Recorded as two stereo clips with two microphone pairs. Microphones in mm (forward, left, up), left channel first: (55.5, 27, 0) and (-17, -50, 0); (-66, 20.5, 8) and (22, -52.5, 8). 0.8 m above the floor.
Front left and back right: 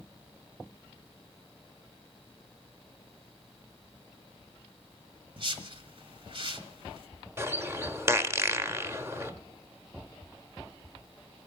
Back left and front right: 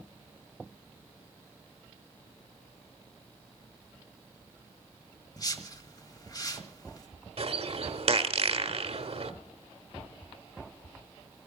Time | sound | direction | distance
5.4 | a whoosh | 165° right | 1.4 m
7.4 | a bird | 70° right | 1.0 m